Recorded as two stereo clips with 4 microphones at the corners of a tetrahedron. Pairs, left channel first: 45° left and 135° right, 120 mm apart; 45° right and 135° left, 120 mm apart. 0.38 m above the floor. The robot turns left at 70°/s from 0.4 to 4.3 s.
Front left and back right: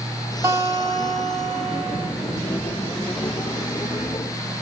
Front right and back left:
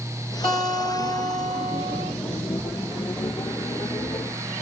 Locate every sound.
0.4 s a guitar: 70° right, 1.8 m; by 2.1 s 170° left, 1.8 m